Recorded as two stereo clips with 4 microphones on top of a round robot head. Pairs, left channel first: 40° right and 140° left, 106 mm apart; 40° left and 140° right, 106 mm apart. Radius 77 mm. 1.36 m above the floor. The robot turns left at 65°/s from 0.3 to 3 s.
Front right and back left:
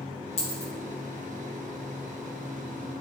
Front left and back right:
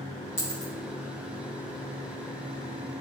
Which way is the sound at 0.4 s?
25° right.